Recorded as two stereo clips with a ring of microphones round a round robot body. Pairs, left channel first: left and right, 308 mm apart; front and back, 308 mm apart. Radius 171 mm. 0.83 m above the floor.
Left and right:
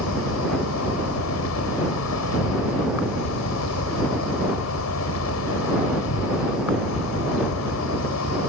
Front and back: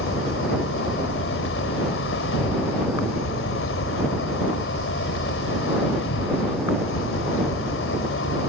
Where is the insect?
50° left.